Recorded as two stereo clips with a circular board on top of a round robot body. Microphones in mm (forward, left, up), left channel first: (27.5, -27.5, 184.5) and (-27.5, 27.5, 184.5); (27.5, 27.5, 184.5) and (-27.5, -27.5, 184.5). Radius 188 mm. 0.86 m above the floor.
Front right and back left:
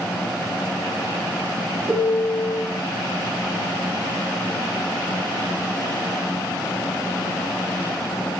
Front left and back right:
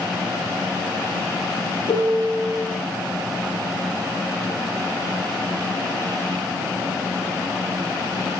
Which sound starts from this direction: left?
A piano, at 1.9 s.